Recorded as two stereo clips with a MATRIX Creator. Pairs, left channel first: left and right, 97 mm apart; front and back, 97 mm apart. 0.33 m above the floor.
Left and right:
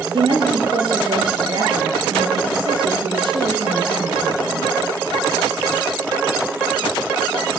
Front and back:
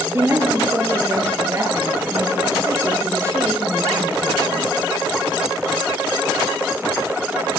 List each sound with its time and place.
0.1 s a woman speaking: 120° right, 6 m